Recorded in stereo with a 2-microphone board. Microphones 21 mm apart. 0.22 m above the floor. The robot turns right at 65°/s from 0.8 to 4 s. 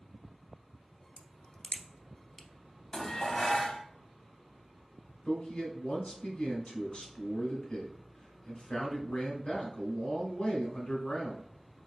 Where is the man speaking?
55° left (ahead or behind), 2 m.